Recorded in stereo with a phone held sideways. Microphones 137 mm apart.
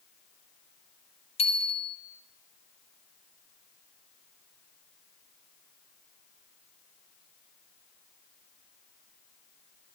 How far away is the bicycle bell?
About 2.5 m.